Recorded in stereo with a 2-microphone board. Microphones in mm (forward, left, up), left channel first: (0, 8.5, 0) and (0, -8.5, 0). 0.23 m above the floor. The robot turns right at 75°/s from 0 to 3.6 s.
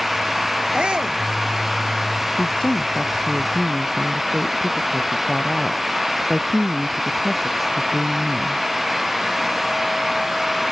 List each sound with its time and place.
0.7 s a shout: 70° right; by 1.2 s 35° right
2.4 s a woman speaking: 90° left; by 8.6 s 175° right